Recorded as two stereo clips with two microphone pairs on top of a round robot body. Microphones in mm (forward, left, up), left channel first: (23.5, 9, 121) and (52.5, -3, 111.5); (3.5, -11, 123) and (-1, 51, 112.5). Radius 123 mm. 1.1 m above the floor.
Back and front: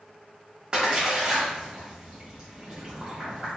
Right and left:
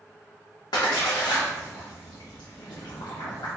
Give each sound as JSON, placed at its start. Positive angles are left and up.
{"t": 0.7, "sound": "a splash", "azimuth_deg": -90, "distance_m": 0.6}